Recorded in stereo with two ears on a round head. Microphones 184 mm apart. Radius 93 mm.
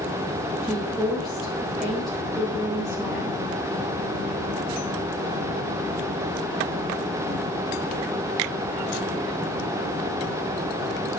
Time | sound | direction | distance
0.6 | a woman speaking | centre (ahead or behind) | 2 m